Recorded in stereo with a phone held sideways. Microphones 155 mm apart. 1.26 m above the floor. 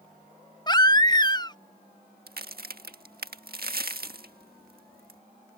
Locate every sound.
0.7 s a baby crying: 25° left (ahead or behind)
2.3 s a crack: 80° right